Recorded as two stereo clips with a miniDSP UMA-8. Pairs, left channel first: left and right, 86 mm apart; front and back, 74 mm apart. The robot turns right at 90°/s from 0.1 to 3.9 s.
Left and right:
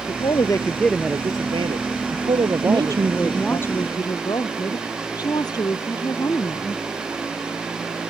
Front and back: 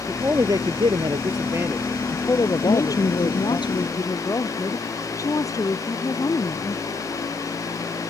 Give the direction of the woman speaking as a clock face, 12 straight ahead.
2 o'clock.